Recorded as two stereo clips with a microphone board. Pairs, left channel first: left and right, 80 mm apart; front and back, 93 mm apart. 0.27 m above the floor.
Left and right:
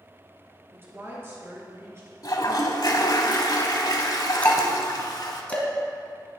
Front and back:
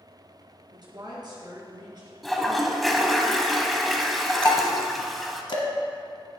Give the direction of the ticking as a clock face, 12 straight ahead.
11 o'clock.